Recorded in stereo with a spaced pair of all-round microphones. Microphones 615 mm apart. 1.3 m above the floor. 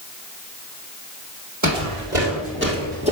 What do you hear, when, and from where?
1.6 s footsteps: 30° right (ahead or behind), 2.5 m; by 3.1 s 10° right (ahead or behind), 1.8 m